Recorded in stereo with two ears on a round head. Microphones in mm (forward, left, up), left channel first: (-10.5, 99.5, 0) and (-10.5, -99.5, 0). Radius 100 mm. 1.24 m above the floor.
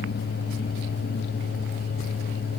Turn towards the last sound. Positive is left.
No sound to turn to.